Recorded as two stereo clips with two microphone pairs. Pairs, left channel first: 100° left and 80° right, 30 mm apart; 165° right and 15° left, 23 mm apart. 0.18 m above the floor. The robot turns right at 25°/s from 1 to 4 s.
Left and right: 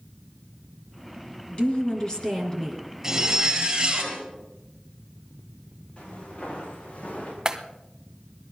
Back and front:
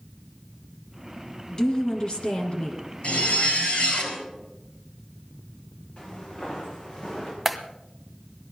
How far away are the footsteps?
About 8 m.